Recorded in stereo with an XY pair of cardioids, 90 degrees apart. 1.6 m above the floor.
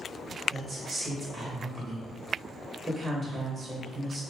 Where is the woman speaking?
30° right, 0.8 m.